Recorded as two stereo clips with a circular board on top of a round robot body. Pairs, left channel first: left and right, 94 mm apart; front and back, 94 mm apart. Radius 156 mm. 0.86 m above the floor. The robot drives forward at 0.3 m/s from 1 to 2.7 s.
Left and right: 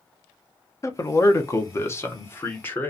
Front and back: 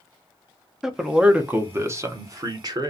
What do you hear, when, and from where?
0.8 s a man speaking: 100° left, 0.7 m; by 2.9 s 150° left, 0.9 m